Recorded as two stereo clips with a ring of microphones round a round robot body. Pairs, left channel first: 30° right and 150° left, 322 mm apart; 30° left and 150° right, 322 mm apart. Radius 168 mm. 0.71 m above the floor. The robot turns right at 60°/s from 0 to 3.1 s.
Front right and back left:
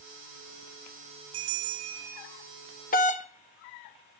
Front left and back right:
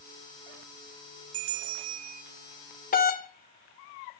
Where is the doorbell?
Straight ahead, 1.6 m; by 4.2 s 10° left, 1.6 m.